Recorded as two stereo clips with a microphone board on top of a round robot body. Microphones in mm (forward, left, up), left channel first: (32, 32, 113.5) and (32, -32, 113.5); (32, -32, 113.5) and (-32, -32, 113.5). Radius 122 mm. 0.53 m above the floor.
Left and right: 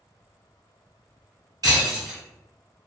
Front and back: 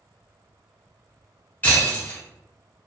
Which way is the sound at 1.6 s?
65° right.